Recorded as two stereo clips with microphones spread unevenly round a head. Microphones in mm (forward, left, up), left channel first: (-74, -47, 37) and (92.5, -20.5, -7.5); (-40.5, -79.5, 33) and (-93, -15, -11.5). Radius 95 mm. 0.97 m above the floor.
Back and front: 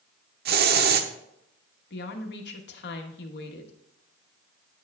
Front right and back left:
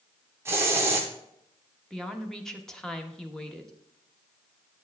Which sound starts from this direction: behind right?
A woman speaking, at 1.9 s.